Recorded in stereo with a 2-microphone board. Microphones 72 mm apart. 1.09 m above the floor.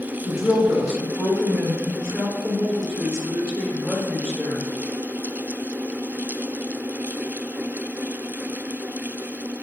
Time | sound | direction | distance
0.2 | a woman speaking | 10° right (ahead or behind) | 1.1 m